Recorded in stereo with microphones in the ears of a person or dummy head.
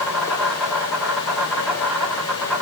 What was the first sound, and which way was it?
An insect, 5° left (ahead or behind).